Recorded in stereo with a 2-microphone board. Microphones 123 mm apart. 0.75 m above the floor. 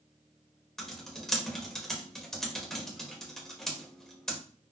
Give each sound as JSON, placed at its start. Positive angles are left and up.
{"t": 0.8, "sound": "typing on a keyboard", "side_deg": 5, "distance_m": 0.8}